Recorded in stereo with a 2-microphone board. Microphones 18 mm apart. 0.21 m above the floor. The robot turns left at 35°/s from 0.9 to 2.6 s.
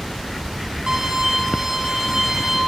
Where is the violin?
75° right, 3 m; by 2.6 s 135° right, 3 m.